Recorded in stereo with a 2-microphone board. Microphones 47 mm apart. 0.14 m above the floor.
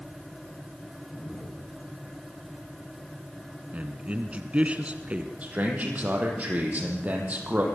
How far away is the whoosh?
About 9 m.